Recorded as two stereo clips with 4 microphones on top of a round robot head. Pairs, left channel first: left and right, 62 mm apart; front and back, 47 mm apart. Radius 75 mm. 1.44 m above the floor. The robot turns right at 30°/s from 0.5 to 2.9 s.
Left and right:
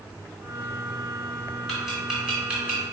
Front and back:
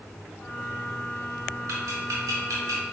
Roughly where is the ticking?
Behind.